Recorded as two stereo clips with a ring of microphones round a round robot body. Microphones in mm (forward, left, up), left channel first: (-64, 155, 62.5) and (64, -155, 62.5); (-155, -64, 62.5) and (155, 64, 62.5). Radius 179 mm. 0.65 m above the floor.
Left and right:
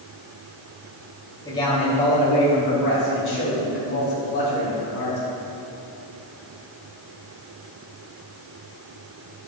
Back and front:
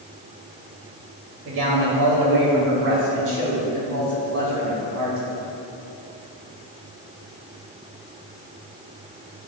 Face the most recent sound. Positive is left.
turn(degrees=70)